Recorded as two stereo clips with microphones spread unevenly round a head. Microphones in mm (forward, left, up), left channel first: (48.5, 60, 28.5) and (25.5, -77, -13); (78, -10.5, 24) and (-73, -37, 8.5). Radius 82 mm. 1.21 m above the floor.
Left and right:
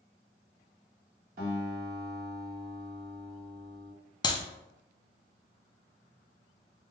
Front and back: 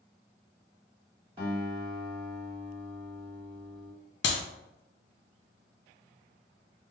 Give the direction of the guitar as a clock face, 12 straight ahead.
4 o'clock.